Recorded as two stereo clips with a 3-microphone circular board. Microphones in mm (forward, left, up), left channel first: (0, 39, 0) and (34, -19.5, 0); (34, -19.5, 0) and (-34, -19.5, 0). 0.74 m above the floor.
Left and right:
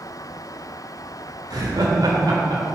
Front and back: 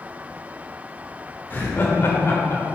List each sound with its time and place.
1.5 s laughter: 60° right, 1.8 m; by 2.6 s 50° right, 2.5 m